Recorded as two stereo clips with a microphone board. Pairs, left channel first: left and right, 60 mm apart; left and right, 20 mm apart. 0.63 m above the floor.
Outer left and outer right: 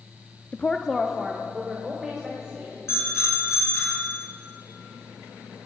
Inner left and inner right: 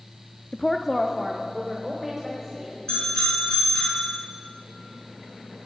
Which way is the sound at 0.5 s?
25° left (ahead or behind).